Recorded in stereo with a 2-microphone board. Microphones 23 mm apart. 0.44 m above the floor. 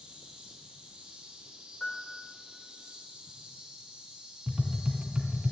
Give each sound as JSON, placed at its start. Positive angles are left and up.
{"t": 0.0, "sound": "an insect", "side_deg": -60, "distance_m": 3.0}
{"t": 1.8, "sound": "a piano", "side_deg": 40, "distance_m": 1.3}
{"t": 4.5, "sound": "tapping", "side_deg": -40, "distance_m": 1.3}